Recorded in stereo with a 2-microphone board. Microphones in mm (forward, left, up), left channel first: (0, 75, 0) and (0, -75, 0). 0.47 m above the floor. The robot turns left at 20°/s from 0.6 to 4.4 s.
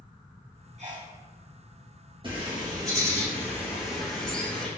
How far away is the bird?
About 3.5 m.